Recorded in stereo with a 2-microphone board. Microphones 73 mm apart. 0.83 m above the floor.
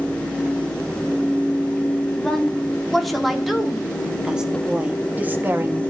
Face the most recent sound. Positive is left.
turn(degrees=-35)  # may be behind; listen again after turning